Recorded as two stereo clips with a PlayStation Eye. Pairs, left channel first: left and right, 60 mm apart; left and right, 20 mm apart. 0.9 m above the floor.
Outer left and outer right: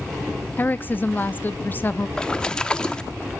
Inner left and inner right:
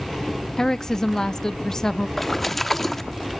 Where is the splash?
15° left (ahead or behind), 1.1 m.